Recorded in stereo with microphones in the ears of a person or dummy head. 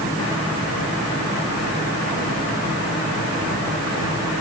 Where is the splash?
I don't hear a splash.